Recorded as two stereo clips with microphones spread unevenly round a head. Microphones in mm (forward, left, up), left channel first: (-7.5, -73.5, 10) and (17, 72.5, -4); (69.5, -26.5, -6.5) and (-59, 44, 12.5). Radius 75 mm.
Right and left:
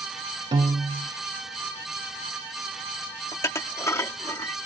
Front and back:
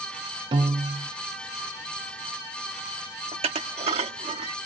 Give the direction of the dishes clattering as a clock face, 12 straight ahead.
6 o'clock.